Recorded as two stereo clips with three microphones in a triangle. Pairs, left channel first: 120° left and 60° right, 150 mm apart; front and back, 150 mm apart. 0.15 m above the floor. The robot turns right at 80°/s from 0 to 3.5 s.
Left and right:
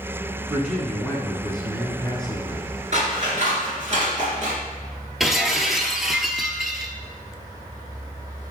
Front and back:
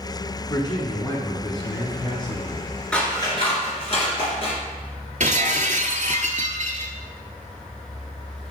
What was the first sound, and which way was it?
A man speaking, 5° left.